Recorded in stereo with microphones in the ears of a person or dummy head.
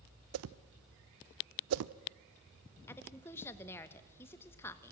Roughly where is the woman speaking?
Centre.